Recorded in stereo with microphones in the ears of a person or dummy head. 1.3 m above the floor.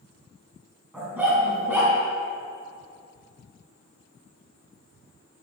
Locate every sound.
0.9 s a dog barking: 5° right (ahead or behind), 4.5 m